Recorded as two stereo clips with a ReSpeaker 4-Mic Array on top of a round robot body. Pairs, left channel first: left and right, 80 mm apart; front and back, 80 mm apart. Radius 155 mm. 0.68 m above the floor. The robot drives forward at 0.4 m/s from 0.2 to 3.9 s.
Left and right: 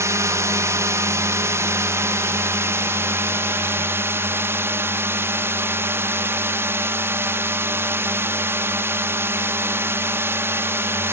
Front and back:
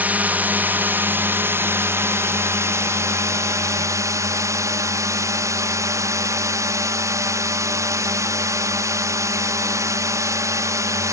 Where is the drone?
120° right; by 11.1 s 145° right.